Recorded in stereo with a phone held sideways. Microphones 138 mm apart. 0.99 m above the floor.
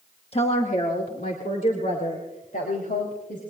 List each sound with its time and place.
0.3 s a woman speaking: 45° left (ahead or behind), 1.1 m; by 3.4 s 80° left, 5 m